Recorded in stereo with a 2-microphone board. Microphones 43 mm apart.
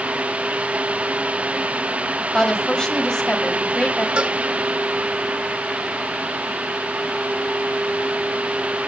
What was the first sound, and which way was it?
A woman speaking, 20° left (ahead or behind).